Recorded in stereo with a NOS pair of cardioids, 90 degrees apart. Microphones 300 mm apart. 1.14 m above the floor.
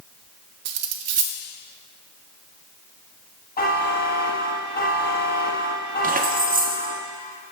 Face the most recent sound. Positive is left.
turn(degrees=-30)